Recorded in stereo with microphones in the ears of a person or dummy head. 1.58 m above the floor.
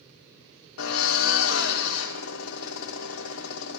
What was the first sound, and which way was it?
A drill, 80° left.